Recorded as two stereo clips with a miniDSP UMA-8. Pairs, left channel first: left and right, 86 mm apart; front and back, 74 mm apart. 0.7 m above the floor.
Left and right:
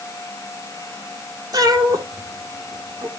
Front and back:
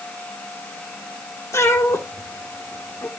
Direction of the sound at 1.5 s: 55° right.